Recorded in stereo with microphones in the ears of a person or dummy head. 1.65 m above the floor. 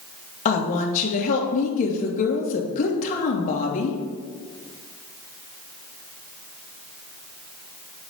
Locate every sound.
0.5 s a woman speaking: 45° left (ahead or behind), 2 m